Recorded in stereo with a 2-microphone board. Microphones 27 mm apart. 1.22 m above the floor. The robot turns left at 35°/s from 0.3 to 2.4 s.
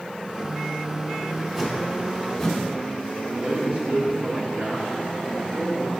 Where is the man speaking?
45° right (ahead or behind), 3 m.